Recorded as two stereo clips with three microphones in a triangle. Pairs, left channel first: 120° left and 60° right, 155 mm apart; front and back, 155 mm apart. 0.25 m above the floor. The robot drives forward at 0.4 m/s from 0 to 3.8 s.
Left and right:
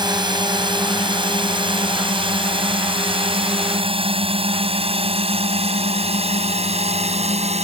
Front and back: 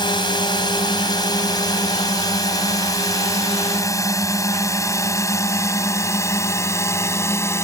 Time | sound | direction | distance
0.0 | a drone | 30° right | ?